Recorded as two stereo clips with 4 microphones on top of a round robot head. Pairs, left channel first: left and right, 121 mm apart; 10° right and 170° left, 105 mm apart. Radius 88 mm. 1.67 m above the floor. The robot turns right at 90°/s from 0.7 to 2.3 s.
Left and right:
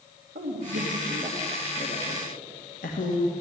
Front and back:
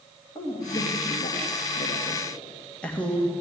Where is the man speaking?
75° right, 2.5 m; by 3.3 s 70° left, 2.5 m.